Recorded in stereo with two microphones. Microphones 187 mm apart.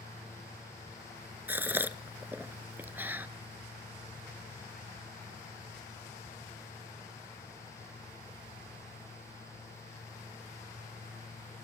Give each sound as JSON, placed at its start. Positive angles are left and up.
{"t": 1.5, "sound": "a gasp", "side_deg": -10, "distance_m": 0.7}